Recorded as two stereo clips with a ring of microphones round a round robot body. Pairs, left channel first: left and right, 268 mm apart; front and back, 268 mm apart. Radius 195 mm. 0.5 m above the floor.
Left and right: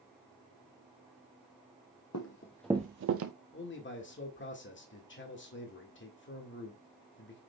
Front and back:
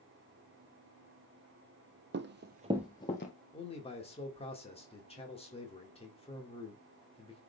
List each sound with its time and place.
2.1 s running footsteps: 135° left, 0.9 m; by 3.3 s 65° right, 1.0 m
3.5 s a man speaking: 60° left, 1.9 m